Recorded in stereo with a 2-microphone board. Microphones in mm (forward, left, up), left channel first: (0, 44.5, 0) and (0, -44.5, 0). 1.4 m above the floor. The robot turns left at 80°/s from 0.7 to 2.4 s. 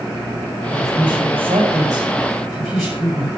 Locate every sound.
0.7 s a woman speaking: 45° right, 7.5 m; by 3.3 s straight behind, 7.5 m